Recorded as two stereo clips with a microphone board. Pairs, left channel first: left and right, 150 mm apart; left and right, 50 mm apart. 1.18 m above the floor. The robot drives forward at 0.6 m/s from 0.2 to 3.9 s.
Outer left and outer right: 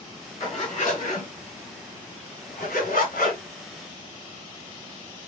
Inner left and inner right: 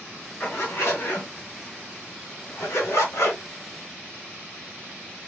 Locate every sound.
0.4 s a zipper: 55° left (ahead or behind), 3 m; by 3.4 s 70° left (ahead or behind), 2.5 m